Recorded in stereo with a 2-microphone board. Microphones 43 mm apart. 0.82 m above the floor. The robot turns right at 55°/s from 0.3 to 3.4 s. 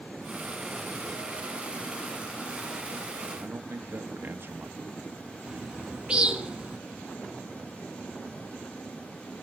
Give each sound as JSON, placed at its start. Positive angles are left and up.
{"t": 3.3, "sound": "a man speaking", "side_deg": -55, "distance_m": 1.4}
{"t": 5.5, "sound": "a bird", "side_deg": -20, "distance_m": 1.2}